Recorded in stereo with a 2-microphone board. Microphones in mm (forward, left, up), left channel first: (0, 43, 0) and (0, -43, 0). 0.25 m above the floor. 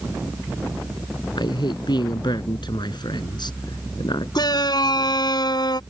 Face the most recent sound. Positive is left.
turn(degrees=50)  # may be behind; listen again after turning